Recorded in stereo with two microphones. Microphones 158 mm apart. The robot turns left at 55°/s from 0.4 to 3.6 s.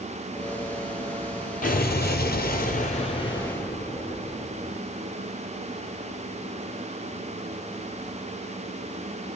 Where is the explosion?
120° left, 0.9 m; by 4.8 s 10° left, 0.9 m.